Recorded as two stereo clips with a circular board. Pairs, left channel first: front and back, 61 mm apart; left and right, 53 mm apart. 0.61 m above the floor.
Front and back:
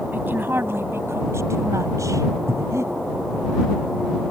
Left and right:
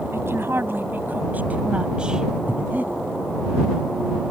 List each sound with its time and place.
0.1 s a woman speaking: 125° right; by 2.3 s 170° right
2.5 s breathing: 145° right